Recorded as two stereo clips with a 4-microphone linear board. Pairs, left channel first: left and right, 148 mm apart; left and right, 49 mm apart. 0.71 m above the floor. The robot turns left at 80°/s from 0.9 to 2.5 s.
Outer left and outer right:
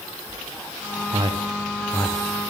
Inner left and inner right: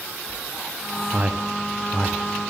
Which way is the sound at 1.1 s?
40° right (ahead or behind).